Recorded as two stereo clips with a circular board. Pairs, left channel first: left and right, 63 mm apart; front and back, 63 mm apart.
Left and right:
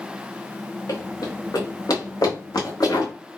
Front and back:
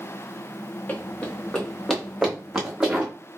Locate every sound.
0.9 s running footsteps: 65° left, 1.4 m; by 3.1 s 100° left, 2.0 m